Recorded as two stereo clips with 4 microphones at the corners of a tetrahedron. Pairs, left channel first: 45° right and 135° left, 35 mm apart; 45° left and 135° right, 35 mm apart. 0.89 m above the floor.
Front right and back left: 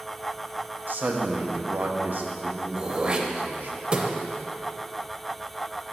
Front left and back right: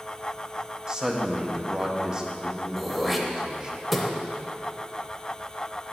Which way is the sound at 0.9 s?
155° left.